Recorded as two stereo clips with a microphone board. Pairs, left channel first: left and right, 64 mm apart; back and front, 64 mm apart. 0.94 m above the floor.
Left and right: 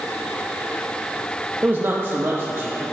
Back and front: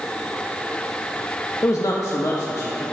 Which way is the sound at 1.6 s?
145° right.